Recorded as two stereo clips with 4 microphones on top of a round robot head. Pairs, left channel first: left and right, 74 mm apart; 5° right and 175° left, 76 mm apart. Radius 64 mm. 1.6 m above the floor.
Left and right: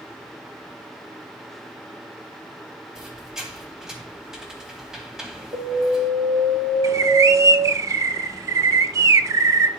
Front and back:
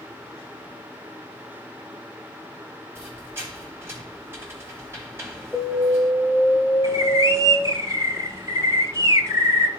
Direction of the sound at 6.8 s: 125° right.